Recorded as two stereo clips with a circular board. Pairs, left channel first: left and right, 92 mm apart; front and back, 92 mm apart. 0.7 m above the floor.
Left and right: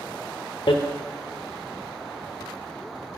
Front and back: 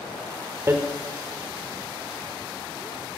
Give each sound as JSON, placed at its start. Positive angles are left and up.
{"t": 0.7, "sound": "hammering", "azimuth_deg": 115, "distance_m": 1.1}